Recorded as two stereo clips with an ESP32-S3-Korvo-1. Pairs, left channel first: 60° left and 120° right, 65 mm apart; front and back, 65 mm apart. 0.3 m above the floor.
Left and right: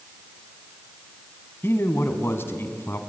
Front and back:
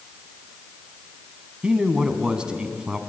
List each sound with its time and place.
1.6 s a man speaking: 105° left, 2 m